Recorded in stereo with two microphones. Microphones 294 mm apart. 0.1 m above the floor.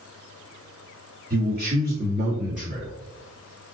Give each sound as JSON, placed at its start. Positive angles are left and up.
{"t": 1.3, "sound": "a man speaking", "side_deg": -35, "distance_m": 2.0}